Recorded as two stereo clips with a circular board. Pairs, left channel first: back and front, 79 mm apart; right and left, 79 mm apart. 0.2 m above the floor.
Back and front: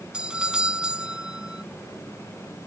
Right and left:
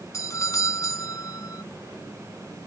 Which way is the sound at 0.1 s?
75° right.